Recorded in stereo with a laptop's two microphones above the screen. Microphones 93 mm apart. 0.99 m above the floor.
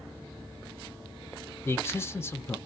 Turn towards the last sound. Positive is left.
turn(degrees=25)  # may be behind; listen again after turning